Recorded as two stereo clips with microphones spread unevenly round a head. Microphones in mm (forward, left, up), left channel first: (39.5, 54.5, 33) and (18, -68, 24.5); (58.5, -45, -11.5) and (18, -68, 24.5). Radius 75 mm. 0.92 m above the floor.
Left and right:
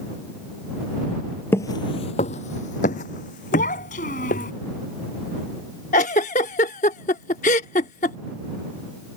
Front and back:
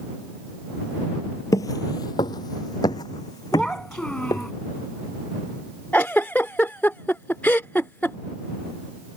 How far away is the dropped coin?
No dropped coin in this recording.